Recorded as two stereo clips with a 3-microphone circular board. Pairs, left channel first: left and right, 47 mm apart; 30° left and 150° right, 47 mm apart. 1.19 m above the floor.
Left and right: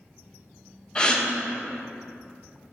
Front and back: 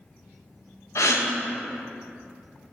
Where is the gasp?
20° left, 0.8 m.